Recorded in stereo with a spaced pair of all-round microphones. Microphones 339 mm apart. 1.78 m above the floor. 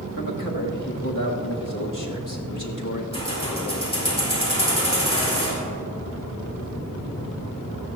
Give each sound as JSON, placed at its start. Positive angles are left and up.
{"t": 0.2, "sound": "a man speaking", "side_deg": 65, "distance_m": 1.8}
{"t": 3.1, "sound": "keys jangling", "side_deg": 15, "distance_m": 4.5}